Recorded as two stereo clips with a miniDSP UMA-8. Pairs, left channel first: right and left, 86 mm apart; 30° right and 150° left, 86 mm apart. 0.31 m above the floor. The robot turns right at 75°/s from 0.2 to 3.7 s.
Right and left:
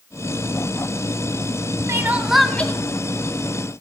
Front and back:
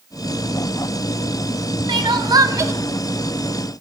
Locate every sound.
1.9 s crying: 140° left, 0.7 m; by 2.7 s 155° right, 0.7 m